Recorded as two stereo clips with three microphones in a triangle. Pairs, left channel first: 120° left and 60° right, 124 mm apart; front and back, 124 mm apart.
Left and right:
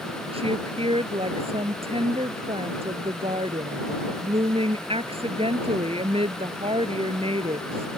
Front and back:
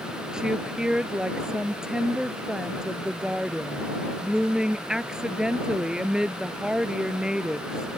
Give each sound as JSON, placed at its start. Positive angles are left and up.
{"t": 0.3, "sound": "a woman speaking", "azimuth_deg": -95}